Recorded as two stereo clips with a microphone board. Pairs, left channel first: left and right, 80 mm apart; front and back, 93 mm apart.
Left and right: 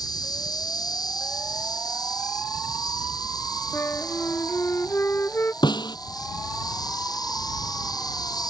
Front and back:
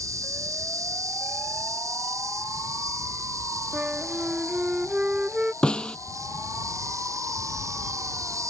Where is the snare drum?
80° left.